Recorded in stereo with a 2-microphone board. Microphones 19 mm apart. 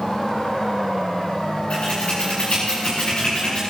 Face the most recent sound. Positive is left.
turn(degrees=70)  # may be behind; listen again after turning